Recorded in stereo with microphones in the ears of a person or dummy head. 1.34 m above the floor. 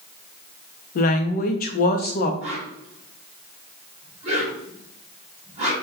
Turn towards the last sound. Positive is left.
turn(degrees=-30)  # may be behind; listen again after turning